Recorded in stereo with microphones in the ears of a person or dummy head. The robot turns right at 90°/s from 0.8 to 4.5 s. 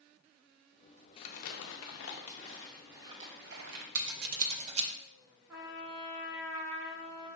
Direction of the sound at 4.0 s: 75° right (ahead or behind).